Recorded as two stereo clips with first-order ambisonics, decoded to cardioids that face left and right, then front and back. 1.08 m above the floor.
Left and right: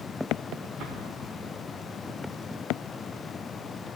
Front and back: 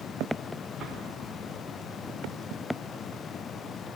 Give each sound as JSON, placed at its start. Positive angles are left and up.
{"t": 0.8, "sound": "an explosion", "azimuth_deg": -115, "distance_m": 4.5}